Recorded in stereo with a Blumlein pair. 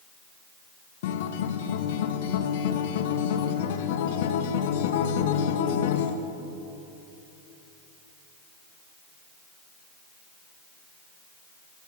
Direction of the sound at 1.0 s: 55° left.